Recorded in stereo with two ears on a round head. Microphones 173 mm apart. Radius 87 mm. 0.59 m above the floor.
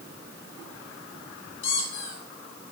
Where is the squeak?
70° left (ahead or behind), 3 m.